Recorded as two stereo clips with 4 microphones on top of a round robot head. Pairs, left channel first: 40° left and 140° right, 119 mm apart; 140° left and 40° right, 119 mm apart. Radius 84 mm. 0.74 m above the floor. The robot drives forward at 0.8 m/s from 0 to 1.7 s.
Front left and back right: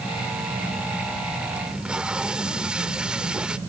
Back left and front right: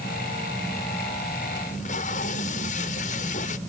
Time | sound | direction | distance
1.7 | tape being pulled | 135° left | ?